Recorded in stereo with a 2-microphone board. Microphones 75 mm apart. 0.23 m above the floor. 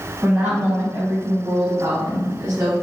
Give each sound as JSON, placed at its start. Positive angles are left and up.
{"t": 0.2, "sound": "a woman speaking", "side_deg": -25, "distance_m": 1.5}